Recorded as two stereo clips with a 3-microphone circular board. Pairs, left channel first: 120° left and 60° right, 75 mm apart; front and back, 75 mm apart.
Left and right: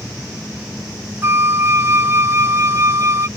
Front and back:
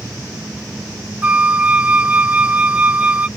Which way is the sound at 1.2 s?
110° right.